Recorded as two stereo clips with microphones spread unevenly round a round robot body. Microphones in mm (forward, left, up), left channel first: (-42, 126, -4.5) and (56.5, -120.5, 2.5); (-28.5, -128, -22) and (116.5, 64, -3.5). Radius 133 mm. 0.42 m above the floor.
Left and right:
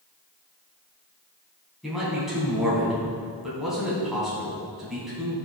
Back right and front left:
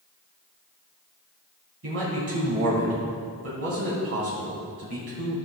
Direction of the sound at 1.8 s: 20° left.